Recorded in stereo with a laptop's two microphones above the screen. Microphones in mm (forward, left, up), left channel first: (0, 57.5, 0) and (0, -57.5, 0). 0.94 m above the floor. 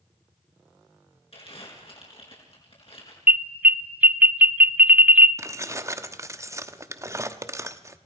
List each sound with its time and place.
1.3 s crumpling: 55° left (ahead or behind), 4.5 m
3.3 s an alarm: 15° right (ahead or behind), 0.6 m
5.4 s keys jangling: 25° right (ahead or behind), 1.0 m